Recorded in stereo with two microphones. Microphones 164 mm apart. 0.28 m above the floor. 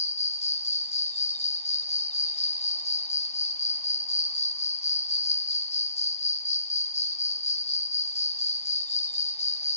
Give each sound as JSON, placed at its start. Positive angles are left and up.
{"t": 0.0, "sound": "an insect", "side_deg": 40, "distance_m": 1.0}